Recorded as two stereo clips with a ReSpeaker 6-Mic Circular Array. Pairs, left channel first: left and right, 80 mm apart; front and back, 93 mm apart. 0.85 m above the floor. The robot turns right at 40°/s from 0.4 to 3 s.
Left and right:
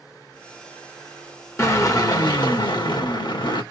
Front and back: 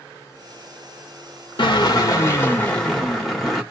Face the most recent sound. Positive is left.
turn(degrees=90)